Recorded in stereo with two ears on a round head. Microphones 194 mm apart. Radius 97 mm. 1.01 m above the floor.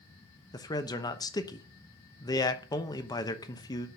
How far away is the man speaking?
About 0.9 m.